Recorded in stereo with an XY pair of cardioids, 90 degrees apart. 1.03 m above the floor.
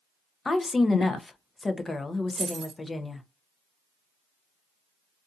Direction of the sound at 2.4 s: 45° right.